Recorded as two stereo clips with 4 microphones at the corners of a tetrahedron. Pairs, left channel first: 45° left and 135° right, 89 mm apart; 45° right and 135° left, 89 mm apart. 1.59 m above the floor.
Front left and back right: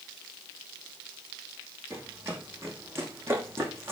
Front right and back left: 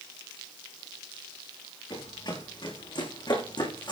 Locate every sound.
1.9 s running footsteps: 75° right, 7 m